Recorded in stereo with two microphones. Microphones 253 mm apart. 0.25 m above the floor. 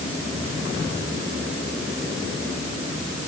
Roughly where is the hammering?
No hammering in this recording.